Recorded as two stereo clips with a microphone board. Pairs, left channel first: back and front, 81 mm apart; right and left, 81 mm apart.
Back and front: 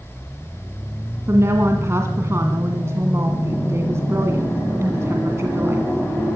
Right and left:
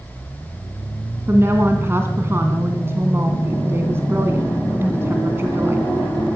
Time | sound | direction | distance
1.3 | a woman speaking | 40° left | 2.0 m